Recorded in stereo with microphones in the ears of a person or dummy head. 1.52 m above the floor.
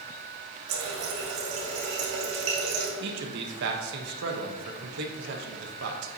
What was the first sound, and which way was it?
A running tap, 55° right (ahead or behind).